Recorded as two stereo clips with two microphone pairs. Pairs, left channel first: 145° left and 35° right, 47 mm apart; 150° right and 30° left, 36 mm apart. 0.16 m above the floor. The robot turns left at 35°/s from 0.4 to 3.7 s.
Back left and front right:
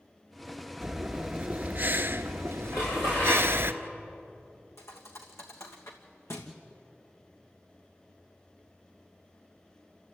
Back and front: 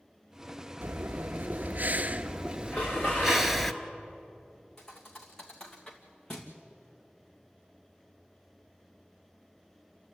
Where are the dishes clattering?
155° left, 9.5 m; by 3.5 s 125° left, 9.5 m.